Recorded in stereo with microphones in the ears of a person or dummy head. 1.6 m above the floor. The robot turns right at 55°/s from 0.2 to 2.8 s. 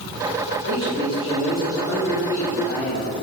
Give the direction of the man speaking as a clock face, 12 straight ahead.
2 o'clock.